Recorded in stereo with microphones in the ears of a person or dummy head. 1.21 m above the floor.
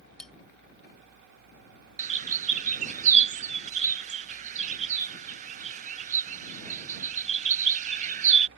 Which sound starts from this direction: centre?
Cutlery clinking, at 0.2 s.